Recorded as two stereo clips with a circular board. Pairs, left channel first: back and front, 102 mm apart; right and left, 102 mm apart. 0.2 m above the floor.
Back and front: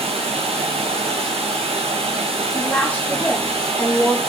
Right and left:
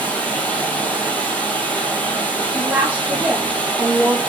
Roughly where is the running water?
Ahead.